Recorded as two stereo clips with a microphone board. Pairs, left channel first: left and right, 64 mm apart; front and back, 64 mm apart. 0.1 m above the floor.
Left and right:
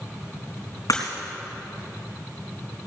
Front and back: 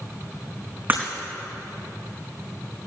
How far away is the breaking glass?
About 4 m.